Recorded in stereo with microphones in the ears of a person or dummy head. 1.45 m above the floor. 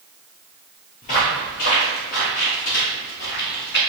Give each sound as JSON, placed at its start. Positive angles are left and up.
{"t": 1.0, "sound": "footsteps", "side_deg": 30, "distance_m": 1.6}